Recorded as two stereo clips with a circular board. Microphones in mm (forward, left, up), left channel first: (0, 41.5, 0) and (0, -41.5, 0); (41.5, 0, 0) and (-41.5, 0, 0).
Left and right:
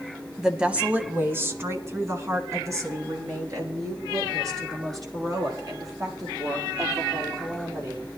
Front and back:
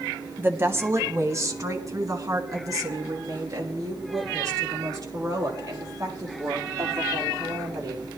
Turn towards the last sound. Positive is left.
turn(degrees=-130)